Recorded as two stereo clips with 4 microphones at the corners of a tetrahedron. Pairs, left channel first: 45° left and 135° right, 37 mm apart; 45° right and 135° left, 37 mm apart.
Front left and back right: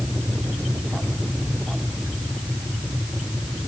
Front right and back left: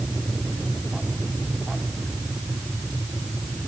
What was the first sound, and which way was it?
Only background noise.